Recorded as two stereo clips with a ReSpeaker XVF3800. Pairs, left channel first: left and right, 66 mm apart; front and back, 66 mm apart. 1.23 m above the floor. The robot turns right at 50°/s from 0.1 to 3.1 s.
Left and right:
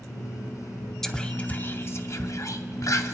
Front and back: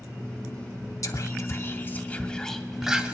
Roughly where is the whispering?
Ahead.